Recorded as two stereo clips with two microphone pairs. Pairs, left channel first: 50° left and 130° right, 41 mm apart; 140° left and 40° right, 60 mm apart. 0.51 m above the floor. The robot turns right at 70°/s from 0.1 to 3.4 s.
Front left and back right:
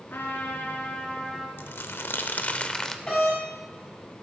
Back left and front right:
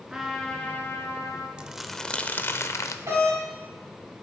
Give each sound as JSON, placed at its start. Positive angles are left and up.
{"t": 0.1, "sound": "a trumpet", "azimuth_deg": 35, "distance_m": 1.6}
{"t": 1.6, "sound": "crumpling", "azimuth_deg": 30, "distance_m": 0.6}
{"t": 3.1, "sound": "a doorbell", "azimuth_deg": -15, "distance_m": 4.5}